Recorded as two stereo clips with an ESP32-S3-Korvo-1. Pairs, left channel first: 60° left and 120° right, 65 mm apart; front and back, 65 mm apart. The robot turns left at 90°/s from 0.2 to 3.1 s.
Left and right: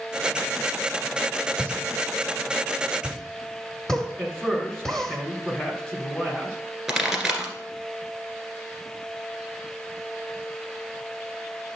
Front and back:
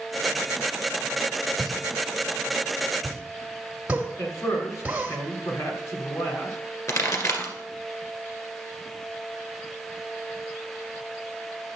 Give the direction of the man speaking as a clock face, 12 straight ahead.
1 o'clock.